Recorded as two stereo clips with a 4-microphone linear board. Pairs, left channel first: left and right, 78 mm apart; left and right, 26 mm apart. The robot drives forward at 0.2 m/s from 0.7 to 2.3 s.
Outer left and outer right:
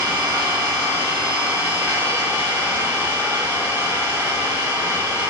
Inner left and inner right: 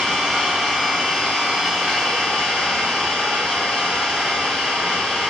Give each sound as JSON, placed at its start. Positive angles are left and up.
{"t": 0.0, "sound": "an engine running", "side_deg": -35, "distance_m": 1.6}